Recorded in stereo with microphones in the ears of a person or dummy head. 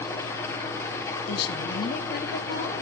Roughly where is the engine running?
Centre.